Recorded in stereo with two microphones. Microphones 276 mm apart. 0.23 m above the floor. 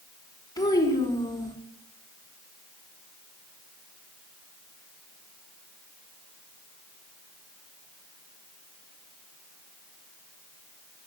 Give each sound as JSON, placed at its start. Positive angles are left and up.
{"t": 0.6, "sound": "a child speaking", "side_deg": 15, "distance_m": 1.6}